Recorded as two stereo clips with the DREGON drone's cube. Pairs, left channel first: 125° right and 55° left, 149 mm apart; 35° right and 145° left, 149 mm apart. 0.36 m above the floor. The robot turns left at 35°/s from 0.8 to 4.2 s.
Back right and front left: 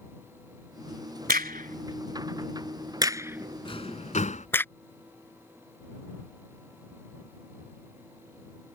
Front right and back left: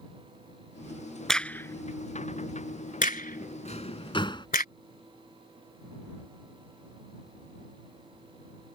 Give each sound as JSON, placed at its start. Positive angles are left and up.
{"t": 1.3, "sound": "a crack", "azimuth_deg": 55}
{"t": 3.6, "sound": "a drawer", "azimuth_deg": -70}